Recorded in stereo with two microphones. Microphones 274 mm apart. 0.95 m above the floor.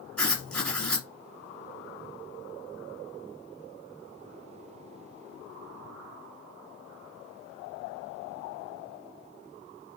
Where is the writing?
5° left (ahead or behind), 1.5 m.